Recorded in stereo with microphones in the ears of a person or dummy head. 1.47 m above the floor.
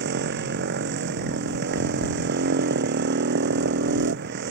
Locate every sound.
0.0 s a motorcycle: 60° right (ahead or behind)